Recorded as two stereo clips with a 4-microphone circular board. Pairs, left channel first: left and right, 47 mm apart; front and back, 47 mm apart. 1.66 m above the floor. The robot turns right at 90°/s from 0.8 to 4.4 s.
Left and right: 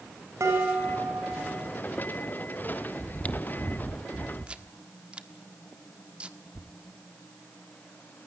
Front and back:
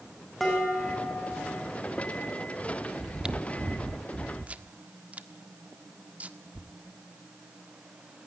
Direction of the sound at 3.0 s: 95° left.